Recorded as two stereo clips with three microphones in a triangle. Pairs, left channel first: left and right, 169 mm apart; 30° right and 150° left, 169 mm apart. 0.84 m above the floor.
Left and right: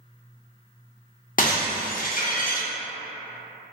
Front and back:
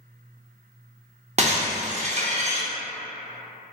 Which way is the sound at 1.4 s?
110° left.